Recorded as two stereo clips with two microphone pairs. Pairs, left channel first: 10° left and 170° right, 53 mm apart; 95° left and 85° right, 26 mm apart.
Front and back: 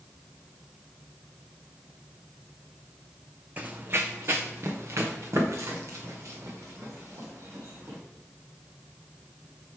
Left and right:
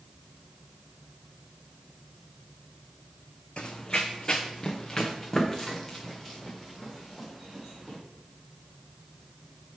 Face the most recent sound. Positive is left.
turn(degrees=175)